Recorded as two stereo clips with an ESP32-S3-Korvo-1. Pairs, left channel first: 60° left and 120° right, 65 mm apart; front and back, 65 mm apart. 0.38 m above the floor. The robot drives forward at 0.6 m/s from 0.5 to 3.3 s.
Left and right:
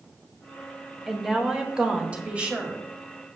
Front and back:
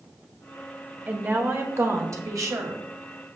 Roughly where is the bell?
I don't hear a bell.